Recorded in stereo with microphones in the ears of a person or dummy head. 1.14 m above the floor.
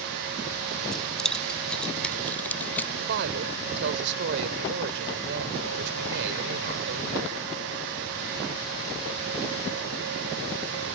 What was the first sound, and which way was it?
Keys jangling, centre (ahead or behind).